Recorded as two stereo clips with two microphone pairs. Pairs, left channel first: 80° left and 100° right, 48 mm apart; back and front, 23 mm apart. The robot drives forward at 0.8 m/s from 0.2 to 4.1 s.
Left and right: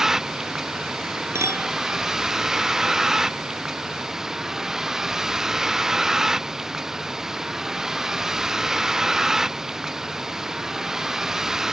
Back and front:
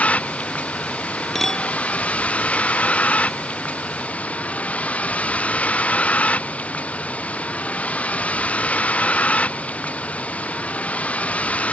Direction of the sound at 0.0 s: Straight behind.